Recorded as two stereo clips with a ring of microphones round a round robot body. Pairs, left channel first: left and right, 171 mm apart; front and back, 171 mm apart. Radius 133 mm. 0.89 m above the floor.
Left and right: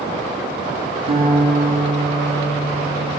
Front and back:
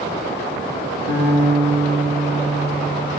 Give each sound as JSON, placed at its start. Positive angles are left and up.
{"t": 1.1, "sound": "a guitar", "azimuth_deg": -35, "distance_m": 3.5}